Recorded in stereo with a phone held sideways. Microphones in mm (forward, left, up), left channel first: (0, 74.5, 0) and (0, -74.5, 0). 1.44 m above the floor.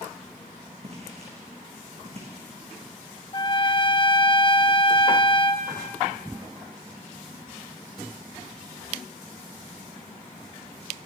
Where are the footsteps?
45° right (ahead or behind), 5.5 m.